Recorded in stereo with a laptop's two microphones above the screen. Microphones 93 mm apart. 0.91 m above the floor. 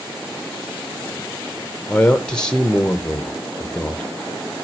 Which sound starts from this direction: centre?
A man speaking, at 1.9 s.